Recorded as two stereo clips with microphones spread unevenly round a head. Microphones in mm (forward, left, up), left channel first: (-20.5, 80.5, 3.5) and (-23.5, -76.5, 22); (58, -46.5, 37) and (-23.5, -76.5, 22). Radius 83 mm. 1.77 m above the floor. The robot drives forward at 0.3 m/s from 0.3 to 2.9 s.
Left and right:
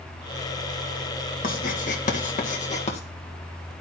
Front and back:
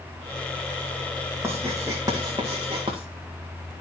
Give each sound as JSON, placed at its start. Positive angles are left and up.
{"t": 1.4, "sound": "writing", "azimuth_deg": 120, "distance_m": 1.3}